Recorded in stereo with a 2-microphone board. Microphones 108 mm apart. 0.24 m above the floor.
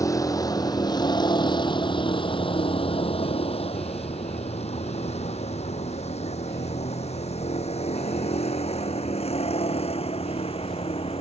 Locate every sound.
0.0 s a vehicle: 30° left (ahead or behind); by 11.2 s 65° left (ahead or behind)